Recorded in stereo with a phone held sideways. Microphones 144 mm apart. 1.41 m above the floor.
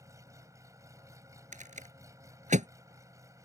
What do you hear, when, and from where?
0.0 s an engine running: 25° right (ahead or behind)
1.5 s a rattle: 65° right (ahead or behind)